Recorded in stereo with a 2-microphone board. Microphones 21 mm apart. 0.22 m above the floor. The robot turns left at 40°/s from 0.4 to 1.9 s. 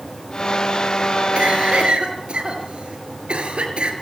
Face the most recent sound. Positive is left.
turn(degrees=-60)  # may be behind; listen again after turning